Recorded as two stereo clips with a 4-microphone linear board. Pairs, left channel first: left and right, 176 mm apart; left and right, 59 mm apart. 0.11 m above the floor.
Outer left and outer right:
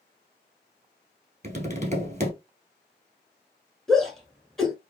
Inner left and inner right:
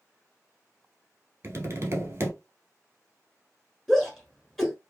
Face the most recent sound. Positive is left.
turn(degrees=0)  # may be behind; listen again after turning